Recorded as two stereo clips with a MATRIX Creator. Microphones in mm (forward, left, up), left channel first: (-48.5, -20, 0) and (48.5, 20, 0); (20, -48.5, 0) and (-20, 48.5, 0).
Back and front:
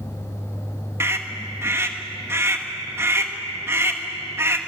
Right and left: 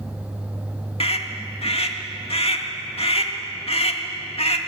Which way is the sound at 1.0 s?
45° right.